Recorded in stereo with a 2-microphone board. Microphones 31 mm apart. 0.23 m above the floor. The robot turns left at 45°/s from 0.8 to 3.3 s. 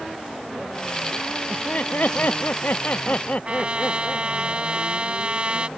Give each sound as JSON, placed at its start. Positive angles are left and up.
{"t": 1.5, "sound": "laughter", "azimuth_deg": 135}
{"t": 3.5, "sound": "a trumpet", "side_deg": -35}